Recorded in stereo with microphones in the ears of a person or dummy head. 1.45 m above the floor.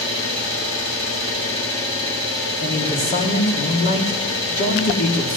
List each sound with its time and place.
0.0 s an engine running: 80° left, 9 m
2.6 s a man speaking: 40° left (ahead or behind), 3 m